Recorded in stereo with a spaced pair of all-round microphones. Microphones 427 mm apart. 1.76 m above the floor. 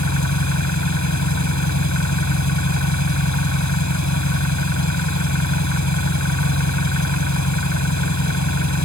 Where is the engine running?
40° left (ahead or behind).